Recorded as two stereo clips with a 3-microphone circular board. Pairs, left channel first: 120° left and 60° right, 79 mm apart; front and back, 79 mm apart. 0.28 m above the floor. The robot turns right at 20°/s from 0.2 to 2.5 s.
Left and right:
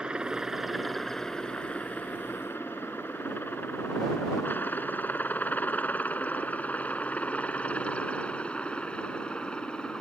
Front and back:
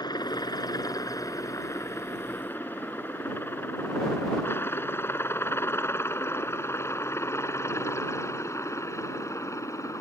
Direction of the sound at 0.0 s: 20° left.